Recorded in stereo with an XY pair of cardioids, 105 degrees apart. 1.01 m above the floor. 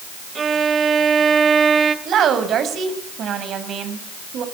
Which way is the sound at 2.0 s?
65° right.